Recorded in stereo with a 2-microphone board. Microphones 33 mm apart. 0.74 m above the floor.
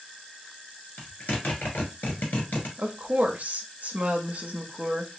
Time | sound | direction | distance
1.0 | a zipper | 60° left (ahead or behind) | 1.7 m
2.8 | a woman speaking | 50° right (ahead or behind) | 0.8 m